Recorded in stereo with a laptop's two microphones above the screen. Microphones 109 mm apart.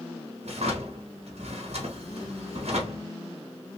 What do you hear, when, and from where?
0.4 s a drawer: 70° right (ahead or behind), 0.9 m